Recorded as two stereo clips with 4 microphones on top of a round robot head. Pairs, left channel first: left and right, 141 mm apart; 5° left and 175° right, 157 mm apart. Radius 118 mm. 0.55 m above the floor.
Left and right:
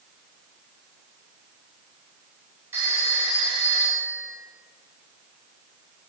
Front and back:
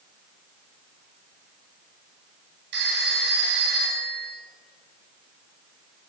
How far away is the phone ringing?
About 1.8 m.